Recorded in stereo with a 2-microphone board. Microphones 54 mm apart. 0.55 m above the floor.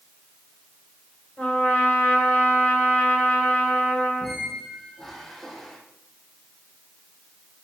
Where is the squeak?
10° left (ahead or behind), 4.5 m.